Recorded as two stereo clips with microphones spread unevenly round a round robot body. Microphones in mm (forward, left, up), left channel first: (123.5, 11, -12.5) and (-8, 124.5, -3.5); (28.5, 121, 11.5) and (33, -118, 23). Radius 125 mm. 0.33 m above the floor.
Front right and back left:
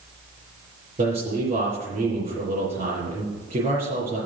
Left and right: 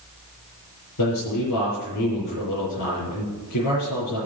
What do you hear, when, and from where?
1.0 s a man speaking: 90° left, 5.5 m